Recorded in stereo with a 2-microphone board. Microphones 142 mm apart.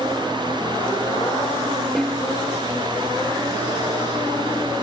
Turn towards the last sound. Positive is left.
turn(degrees=0)  # may be behind; listen again after turning